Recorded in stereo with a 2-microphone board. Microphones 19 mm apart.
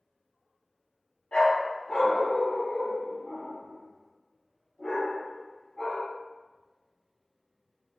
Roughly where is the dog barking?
Left.